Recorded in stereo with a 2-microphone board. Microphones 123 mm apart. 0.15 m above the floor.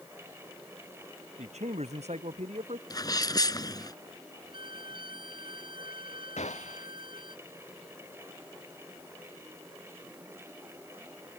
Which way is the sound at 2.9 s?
30° left (ahead or behind).